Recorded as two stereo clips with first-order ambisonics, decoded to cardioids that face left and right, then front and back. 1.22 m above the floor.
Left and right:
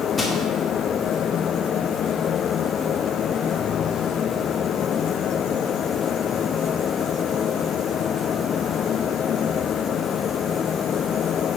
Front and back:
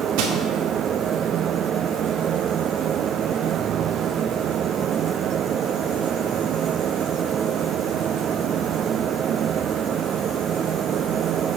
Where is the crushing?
170° left, 1.6 m.